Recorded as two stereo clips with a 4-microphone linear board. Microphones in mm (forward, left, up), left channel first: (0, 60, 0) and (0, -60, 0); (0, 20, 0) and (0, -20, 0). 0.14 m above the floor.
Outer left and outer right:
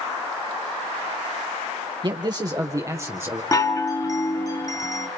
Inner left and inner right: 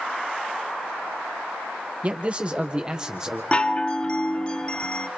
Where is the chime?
30° left (ahead or behind), 1.5 m.